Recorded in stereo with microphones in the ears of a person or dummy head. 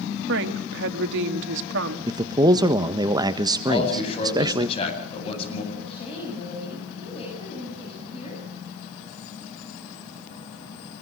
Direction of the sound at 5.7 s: 35° left (ahead or behind).